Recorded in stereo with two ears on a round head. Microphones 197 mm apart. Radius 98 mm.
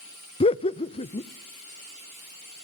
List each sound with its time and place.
0.4 s laughter: 25° left (ahead or behind), 0.8 m